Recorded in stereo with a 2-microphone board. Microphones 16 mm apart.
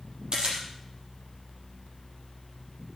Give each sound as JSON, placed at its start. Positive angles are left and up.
{"t": 0.3, "sound": "a camera shutter", "side_deg": -60, "distance_m": 6.5}